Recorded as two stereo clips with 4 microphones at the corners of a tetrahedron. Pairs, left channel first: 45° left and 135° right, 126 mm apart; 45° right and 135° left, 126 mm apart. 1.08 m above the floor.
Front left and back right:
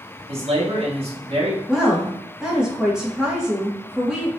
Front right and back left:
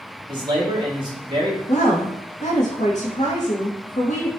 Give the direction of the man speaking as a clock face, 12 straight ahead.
6 o'clock.